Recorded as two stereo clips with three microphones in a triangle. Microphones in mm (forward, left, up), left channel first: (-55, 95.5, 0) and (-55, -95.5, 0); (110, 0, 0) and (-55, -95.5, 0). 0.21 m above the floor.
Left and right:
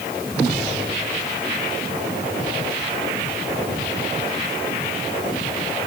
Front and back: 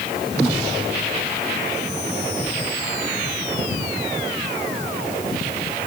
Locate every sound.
Only background noise.